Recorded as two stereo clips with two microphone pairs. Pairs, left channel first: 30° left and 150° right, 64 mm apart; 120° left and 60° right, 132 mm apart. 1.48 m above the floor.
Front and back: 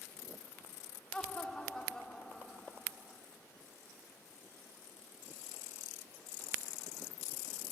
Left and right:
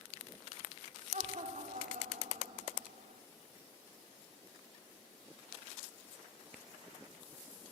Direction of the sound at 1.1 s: 45° right.